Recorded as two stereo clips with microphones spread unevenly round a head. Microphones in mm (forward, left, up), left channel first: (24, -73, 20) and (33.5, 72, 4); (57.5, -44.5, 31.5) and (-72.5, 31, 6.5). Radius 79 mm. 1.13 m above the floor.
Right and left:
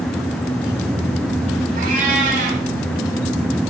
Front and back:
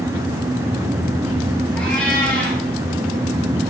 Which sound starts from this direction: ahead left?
A cat meowing, at 1.8 s.